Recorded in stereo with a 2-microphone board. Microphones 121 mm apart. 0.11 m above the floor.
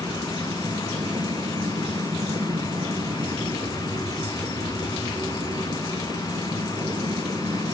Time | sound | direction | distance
0.0 | an aircraft | 40° right (ahead or behind) | ?